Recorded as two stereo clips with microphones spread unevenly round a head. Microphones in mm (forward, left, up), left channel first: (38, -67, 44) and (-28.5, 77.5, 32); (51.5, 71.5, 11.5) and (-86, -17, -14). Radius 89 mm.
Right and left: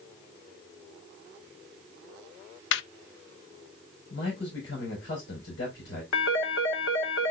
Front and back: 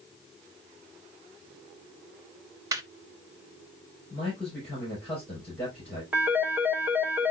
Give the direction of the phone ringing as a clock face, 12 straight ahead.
2 o'clock.